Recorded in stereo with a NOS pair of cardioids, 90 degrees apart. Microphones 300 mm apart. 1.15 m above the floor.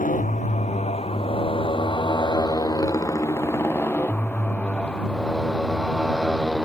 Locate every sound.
0.0 s a motorcycle: 25° left; by 6.7 s straight ahead